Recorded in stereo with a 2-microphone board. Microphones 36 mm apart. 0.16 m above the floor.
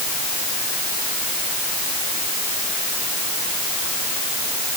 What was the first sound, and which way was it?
Only background noise.